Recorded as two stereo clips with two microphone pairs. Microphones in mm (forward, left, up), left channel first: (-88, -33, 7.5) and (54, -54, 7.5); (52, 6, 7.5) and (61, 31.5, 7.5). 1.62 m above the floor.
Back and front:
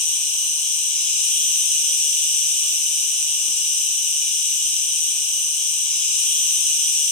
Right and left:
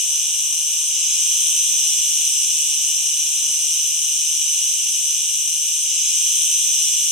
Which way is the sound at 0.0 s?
140° left.